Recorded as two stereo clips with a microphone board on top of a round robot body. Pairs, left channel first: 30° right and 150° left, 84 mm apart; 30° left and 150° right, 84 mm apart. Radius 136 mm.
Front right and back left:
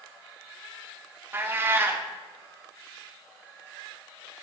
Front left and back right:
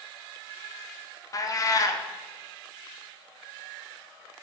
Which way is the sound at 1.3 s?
85° left.